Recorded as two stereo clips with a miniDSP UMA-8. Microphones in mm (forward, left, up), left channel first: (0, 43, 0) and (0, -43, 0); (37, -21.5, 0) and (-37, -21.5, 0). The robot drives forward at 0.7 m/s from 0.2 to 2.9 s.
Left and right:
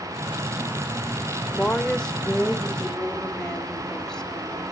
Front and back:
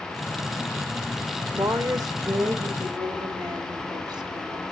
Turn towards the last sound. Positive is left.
turn(degrees=175)